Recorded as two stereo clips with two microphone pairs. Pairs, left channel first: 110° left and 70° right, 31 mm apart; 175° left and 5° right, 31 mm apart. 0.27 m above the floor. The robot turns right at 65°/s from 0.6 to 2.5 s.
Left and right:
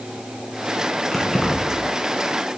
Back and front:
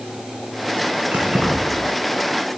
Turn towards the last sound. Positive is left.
turn(degrees=120)